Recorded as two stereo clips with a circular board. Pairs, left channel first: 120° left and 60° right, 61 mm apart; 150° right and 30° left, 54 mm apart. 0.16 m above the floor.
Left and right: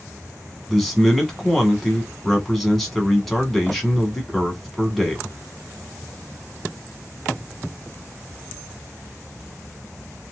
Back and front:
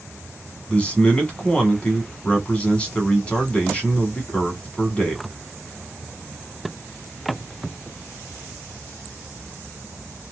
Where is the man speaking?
160° right, 1.2 m.